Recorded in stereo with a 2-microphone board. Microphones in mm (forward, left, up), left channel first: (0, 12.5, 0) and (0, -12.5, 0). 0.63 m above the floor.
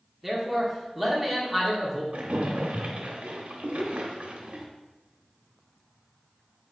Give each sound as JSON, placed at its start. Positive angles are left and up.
{"t": 0.2, "sound": "a man speaking", "side_deg": -5, "distance_m": 1.3}
{"t": 2.1, "sound": "a splash", "side_deg": -75, "distance_m": 0.7}